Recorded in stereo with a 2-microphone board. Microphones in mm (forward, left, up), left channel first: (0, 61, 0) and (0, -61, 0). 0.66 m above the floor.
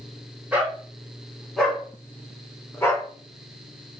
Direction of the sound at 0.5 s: 10° right (ahead or behind).